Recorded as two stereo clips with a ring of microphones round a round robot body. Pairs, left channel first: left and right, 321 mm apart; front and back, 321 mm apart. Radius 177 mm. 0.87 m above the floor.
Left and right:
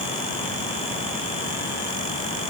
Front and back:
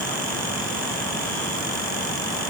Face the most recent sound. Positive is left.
No sound to turn to.